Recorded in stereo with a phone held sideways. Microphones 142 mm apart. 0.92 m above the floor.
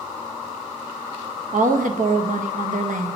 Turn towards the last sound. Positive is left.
turn(degrees=-65)  # may be behind; listen again after turning